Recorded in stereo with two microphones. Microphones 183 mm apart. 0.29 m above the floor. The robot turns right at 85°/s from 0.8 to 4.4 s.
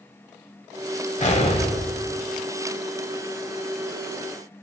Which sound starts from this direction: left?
An explosion, at 1.2 s.